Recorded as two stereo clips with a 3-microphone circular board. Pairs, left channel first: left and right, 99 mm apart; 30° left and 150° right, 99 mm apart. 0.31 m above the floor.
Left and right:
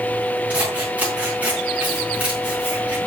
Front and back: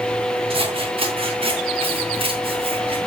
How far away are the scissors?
About 4 m.